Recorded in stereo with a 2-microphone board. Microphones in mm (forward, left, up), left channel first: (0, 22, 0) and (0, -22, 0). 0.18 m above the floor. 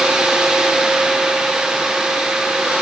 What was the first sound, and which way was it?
Only background noise.